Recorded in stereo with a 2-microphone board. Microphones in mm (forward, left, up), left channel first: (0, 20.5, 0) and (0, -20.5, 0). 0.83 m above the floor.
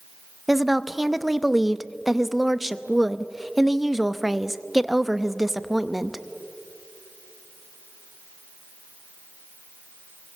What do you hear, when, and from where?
0.5 s a woman speaking: 5° right (ahead or behind), 0.7 m